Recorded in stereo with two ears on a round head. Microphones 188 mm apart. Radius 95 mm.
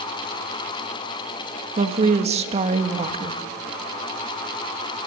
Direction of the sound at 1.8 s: 30° right (ahead or behind).